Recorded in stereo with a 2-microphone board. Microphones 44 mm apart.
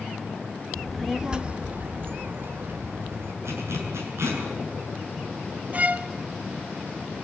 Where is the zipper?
80° right, 6.5 m.